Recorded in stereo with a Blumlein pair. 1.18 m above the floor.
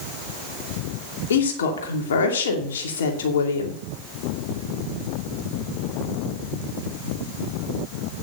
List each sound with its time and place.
1.3 s a woman speaking: 60° left, 2.5 m